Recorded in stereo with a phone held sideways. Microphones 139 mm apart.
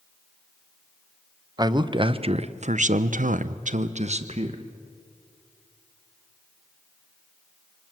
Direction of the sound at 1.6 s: 30° right (ahead or behind).